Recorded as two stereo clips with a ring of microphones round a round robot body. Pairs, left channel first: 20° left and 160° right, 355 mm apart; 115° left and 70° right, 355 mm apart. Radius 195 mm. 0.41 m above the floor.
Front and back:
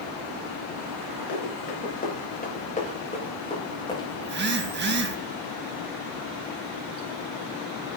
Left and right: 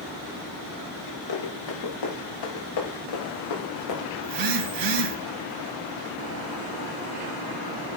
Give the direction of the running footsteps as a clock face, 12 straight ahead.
9 o'clock.